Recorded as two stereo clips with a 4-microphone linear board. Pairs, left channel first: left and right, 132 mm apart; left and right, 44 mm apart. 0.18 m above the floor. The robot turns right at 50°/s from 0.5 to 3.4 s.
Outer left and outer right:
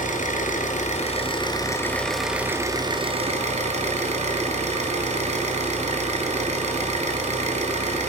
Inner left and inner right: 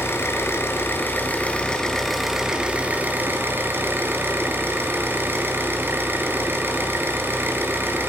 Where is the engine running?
95° left, 1.4 m; by 8.1 s 120° right, 1.4 m.